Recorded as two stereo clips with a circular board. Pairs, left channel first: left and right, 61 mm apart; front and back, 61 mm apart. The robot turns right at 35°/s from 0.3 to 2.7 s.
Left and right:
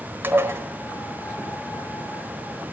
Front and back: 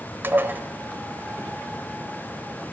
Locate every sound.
0.2 s dishes clattering: 135° right, 1.2 m; by 0.6 s 125° right, 1.2 m